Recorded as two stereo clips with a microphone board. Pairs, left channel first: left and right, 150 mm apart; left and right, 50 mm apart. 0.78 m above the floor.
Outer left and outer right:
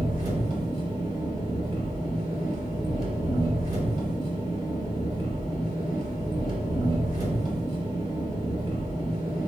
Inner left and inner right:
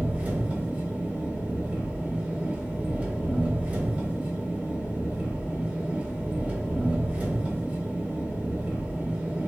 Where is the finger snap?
No finger snap in this recording.